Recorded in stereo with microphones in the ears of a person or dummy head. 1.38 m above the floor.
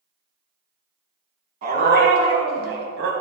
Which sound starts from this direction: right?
A dog barking, at 1.6 s.